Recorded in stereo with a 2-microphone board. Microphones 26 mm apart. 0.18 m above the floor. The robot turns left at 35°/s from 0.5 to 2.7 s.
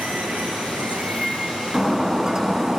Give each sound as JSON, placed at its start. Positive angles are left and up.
{"t": 0.0, "sound": "running water", "azimuth_deg": -95, "distance_m": 1.2}
{"t": 1.7, "sound": "breaking glass", "azimuth_deg": -20, "distance_m": 1.0}